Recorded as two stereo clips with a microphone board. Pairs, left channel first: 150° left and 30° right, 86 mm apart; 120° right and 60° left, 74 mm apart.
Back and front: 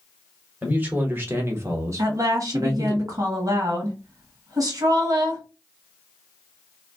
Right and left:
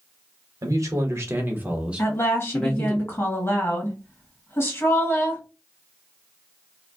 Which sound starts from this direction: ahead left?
A man speaking, at 0.6 s.